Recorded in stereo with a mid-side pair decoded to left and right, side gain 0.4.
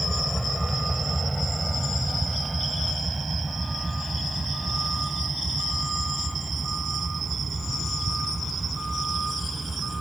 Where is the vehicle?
5° right; by 10.0 s 25° right.